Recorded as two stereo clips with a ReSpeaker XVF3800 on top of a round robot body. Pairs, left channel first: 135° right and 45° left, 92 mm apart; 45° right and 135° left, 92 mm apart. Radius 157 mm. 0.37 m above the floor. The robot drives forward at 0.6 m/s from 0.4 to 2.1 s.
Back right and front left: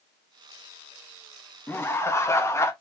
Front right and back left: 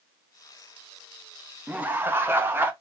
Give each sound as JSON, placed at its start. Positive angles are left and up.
{"t": 1.7, "sound": "laughter", "azimuth_deg": -170, "distance_m": 0.9}